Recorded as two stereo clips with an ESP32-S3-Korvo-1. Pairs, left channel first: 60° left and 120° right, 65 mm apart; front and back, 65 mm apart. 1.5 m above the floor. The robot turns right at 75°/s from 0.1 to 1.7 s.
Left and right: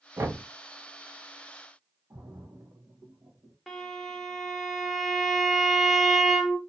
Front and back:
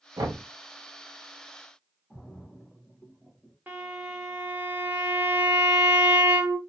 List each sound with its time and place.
0.2 s knocking: 175° right, 0.7 m; by 0.4 s 155° right, 0.7 m
2.1 s a splash: 80° right, 0.9 m
3.7 s a violin: 145° left, 0.9 m